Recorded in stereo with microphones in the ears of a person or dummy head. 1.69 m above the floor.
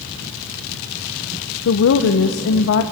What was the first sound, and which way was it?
A woman speaking, 70° left (ahead or behind).